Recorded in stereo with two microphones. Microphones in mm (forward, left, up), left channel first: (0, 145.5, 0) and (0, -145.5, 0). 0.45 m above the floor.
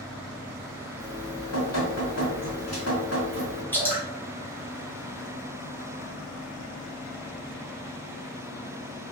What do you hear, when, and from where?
1.0 s dripping: 60° left (ahead or behind), 1.3 m
3.7 s dripping: 5° left (ahead or behind), 1.5 m